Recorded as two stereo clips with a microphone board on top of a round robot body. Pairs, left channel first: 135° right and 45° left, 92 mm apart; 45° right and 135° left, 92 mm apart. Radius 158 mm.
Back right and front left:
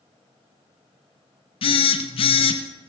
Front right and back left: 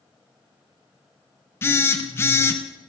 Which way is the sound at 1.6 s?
110° right.